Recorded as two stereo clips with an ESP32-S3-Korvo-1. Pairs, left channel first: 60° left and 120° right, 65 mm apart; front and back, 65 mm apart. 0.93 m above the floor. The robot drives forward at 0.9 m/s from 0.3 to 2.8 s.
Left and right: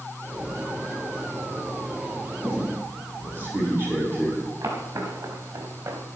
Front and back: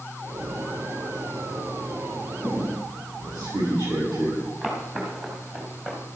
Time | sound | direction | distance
2.4 | a squeak | straight behind | 5.5 m
4.6 | footsteps | 105° right | 5 m